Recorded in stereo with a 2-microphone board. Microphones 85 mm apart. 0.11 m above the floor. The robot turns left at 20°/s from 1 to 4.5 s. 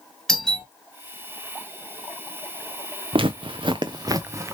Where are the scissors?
I don't hear scissors.